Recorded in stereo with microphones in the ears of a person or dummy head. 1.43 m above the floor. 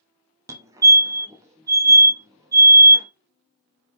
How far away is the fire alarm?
About 0.7 m.